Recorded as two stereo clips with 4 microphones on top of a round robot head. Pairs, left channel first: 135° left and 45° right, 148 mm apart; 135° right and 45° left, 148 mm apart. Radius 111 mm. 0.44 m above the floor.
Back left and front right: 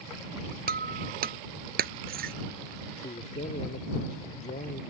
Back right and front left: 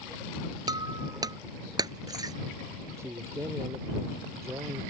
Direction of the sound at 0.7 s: 20° right.